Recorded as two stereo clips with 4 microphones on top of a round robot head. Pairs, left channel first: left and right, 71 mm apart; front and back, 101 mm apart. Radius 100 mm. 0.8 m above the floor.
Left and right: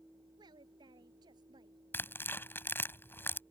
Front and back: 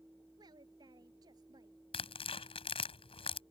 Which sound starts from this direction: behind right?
A woman speaking, at 0.4 s.